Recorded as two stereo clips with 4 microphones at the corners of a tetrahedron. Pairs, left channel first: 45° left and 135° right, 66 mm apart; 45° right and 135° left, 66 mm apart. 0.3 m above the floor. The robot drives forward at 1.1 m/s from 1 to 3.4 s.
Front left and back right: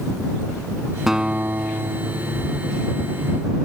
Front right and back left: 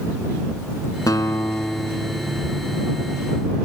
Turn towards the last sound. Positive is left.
turn(degrees=-160)